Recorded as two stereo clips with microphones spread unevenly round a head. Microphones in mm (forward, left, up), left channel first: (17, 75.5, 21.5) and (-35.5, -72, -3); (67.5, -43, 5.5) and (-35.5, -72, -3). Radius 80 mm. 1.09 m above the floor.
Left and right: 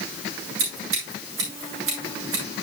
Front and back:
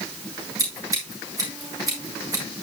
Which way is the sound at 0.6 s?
110° right.